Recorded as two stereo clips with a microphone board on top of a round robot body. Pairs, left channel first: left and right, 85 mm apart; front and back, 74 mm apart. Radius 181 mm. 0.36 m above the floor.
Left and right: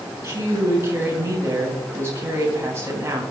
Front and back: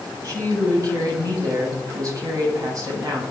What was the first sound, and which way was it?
A woman speaking, 145° right.